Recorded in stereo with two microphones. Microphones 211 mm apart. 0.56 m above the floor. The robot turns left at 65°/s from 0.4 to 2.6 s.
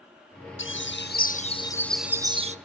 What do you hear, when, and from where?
0.6 s a bird: 90° left, 0.7 m; by 2.6 s 40° right, 0.7 m